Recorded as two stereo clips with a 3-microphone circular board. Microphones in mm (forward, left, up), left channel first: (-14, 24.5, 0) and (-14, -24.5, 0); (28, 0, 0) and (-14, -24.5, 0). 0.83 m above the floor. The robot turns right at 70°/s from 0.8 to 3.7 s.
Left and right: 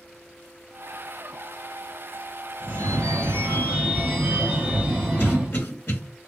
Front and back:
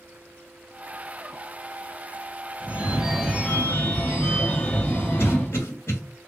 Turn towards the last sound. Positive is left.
turn(degrees=45)